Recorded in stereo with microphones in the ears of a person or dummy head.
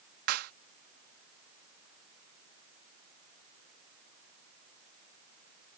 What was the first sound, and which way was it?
A clap, 55° right (ahead or behind).